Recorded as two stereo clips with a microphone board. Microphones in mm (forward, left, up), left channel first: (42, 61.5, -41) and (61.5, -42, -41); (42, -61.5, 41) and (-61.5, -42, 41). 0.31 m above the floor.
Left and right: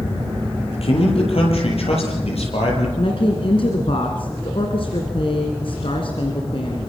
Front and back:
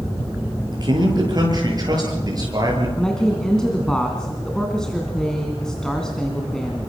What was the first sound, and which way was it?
A man speaking, 120° left.